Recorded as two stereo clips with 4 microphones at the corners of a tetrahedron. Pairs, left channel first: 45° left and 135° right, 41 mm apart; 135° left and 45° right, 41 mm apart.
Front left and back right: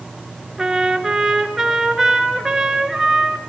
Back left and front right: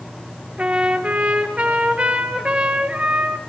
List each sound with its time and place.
0.6 s a trumpet: 60° right, 2.0 m